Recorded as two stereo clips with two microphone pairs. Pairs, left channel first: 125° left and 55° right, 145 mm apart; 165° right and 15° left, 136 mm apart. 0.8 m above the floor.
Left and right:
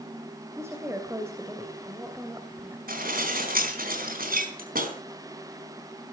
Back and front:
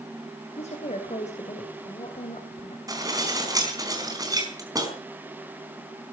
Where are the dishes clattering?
50° right, 4 m.